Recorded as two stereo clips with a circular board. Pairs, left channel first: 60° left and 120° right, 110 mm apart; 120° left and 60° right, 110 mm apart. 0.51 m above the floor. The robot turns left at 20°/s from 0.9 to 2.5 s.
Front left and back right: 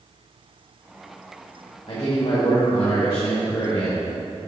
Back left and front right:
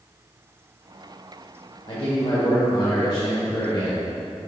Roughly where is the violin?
I don't hear a violin.